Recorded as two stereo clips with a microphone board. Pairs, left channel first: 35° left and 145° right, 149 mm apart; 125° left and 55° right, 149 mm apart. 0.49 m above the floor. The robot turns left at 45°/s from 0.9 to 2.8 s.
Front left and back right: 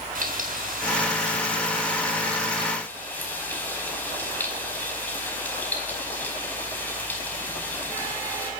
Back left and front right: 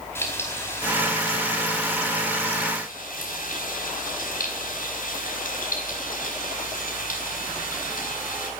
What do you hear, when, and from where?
0.1 s frying: 165° right, 4.5 m; by 8.5 s 110° left, 4.5 m